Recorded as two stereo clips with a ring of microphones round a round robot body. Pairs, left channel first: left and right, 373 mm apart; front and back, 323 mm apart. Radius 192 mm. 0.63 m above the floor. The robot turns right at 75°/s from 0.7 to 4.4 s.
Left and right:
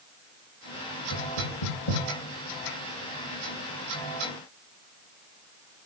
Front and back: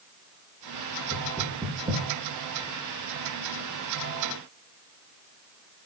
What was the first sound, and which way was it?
Knocking, 60° left.